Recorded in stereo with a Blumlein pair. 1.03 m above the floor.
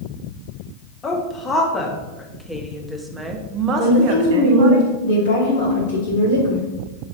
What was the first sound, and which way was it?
A woman speaking, 20° left.